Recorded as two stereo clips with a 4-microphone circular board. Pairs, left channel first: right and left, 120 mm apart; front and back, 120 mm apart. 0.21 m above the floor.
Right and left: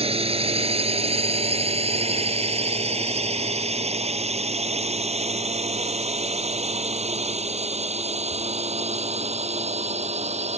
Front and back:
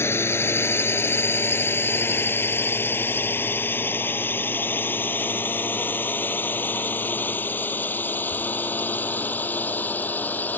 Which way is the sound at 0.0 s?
65° left.